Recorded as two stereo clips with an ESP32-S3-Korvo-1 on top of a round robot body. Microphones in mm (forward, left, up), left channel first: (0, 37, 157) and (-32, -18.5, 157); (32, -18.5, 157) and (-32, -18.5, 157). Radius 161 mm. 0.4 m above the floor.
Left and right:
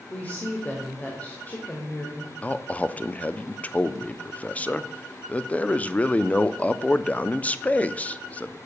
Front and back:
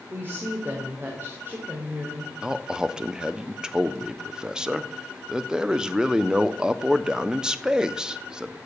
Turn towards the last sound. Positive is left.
turn(degrees=110)